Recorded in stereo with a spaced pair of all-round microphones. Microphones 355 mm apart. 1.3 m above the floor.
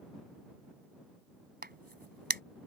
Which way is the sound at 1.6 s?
25° right (ahead or behind).